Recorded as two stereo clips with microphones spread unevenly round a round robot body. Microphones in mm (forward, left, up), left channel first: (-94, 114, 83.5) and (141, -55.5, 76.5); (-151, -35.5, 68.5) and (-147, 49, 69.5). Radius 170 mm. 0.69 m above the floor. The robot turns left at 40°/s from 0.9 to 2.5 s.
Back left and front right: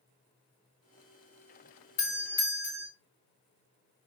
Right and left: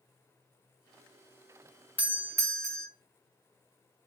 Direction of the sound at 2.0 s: 150° left.